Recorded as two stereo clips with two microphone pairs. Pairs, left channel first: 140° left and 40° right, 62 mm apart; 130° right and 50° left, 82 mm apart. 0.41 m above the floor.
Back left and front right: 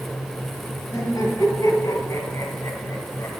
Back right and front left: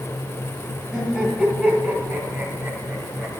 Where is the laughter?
140° left, 3 m; by 3.4 s 125° left, 1.7 m.